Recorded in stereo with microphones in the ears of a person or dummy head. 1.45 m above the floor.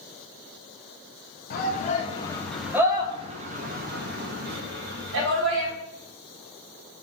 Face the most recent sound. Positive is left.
turn(degrees=-70)  # may be behind; listen again after turning